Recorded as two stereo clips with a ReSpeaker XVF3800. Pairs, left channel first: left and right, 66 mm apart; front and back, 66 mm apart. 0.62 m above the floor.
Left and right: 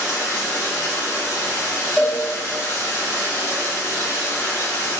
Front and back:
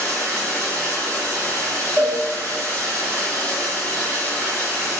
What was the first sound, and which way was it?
Running water, 55° left.